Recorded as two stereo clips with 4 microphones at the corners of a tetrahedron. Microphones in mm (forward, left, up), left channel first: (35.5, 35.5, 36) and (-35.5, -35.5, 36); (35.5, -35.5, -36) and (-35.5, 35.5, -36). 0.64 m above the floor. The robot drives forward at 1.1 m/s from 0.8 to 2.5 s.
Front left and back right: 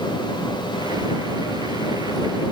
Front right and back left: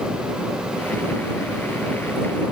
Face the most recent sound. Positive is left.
No sound to turn to.